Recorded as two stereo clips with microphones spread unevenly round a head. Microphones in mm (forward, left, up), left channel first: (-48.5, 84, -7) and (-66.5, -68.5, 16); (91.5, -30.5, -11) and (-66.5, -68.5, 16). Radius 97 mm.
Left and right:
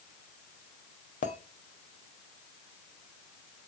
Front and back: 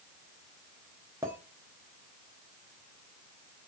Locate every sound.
1.2 s a clink: 115° left, 1.0 m